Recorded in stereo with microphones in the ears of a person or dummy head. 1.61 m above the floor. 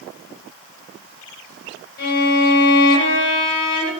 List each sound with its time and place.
2.0 s a violin: 50° left (ahead or behind), 0.8 m